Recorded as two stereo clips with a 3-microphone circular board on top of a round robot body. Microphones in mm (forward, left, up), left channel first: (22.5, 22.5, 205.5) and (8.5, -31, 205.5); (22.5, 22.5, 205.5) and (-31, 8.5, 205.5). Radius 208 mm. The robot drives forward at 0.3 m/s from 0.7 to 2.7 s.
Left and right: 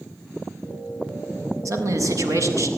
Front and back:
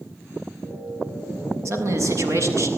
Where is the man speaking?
130° right, 6.5 m.